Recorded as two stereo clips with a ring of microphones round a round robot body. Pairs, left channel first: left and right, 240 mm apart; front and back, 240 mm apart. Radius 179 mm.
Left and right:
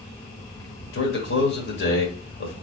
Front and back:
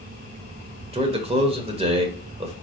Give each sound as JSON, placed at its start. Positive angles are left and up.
{"t": 0.9, "sound": "a man speaking", "azimuth_deg": 120, "distance_m": 1.4}